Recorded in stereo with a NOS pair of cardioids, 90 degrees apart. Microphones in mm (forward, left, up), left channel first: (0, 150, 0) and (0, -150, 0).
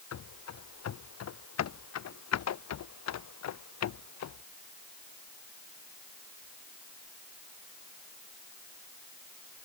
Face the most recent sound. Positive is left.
turn(degrees=60)